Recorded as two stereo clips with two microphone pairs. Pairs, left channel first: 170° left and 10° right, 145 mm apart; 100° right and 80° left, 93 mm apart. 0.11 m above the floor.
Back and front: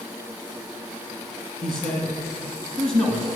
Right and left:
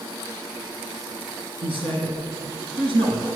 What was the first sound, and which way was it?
A man speaking, 85° left.